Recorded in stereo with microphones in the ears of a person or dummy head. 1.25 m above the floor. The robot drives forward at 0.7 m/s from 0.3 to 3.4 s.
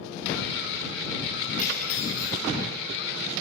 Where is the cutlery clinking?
40° left (ahead or behind), 6 m; by 2.4 s 45° left (ahead or behind), 5.5 m.